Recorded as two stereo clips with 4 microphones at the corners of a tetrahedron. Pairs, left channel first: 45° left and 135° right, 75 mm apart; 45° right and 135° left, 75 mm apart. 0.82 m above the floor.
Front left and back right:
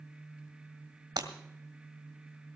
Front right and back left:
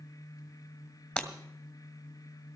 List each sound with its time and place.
1.2 s breaking glass: 115° right, 1.7 m